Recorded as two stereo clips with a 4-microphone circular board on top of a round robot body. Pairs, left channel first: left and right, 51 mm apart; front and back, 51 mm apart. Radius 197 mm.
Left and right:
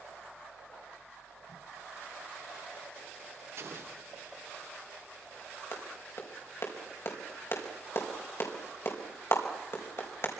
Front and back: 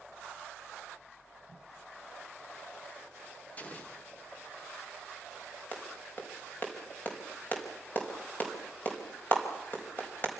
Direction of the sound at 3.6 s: 60° right.